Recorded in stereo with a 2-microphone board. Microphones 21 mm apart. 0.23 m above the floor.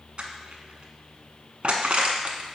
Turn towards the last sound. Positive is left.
turn(degrees=-55)  # may be behind; listen again after turning